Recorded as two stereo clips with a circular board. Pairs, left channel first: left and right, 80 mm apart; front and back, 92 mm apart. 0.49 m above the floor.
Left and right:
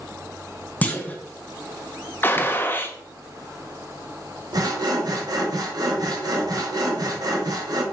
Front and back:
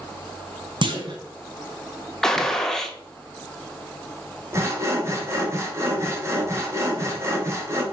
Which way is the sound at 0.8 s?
160° left.